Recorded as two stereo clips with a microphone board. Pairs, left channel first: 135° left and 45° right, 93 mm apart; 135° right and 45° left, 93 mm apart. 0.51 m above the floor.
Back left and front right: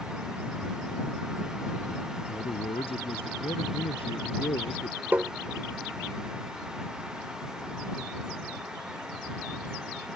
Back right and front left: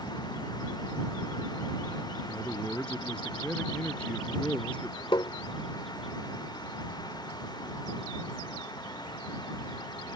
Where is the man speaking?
145° left.